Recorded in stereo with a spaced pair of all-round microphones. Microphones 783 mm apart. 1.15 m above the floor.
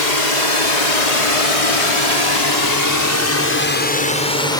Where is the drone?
70° left (ahead or behind); by 4.6 s 5° left (ahead or behind).